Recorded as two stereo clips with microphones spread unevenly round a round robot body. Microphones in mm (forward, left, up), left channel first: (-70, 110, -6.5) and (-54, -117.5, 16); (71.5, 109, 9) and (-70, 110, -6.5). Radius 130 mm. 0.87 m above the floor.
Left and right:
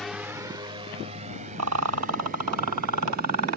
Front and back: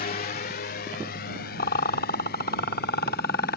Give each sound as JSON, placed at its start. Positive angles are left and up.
{"t": 0.0, "sound": "a drone", "azimuth_deg": 5}
{"t": 1.6, "sound": "a rattle", "azimuth_deg": -55}